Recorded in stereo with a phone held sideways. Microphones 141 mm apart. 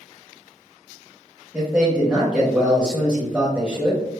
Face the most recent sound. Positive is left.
turn(degrees=-10)  # may be behind; listen again after turning